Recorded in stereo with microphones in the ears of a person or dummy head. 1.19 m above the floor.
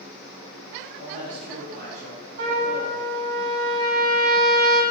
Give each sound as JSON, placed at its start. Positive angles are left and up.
{"t": 1.0, "sound": "a man speaking", "side_deg": -50, "distance_m": 2.5}
{"t": 2.4, "sound": "a trumpet", "side_deg": -55, "distance_m": 2.5}